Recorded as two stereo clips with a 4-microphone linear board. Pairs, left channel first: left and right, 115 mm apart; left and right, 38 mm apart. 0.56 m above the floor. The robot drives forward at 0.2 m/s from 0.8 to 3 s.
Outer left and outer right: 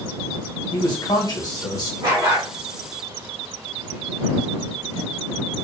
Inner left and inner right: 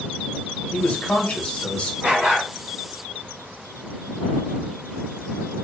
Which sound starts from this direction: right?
A dog barking, at 2.0 s.